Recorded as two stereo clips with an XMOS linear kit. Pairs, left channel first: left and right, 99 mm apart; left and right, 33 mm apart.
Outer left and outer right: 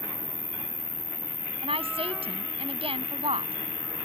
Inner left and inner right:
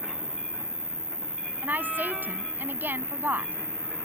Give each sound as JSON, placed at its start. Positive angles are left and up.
{"t": 0.0, "sound": "an insect", "side_deg": 35}
{"t": 1.6, "sound": "a woman speaking", "side_deg": -85}